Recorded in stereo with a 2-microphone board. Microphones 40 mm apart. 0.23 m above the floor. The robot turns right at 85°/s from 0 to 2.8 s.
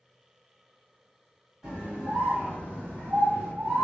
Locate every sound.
1.6 s a scream: 160° right, 1.6 m; by 3.9 s 65° right, 1.6 m